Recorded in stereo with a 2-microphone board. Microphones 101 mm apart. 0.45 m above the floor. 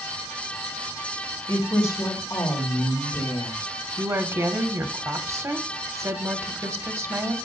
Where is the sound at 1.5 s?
30° left (ahead or behind), 2.5 m; by 3.6 s 55° left (ahead or behind), 3 m.